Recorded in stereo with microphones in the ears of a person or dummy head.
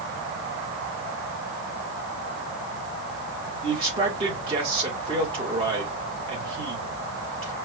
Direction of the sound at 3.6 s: 30° right (ahead or behind).